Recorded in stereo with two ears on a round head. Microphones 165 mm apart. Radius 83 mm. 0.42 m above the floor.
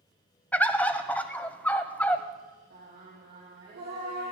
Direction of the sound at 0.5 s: 10° left (ahead or behind).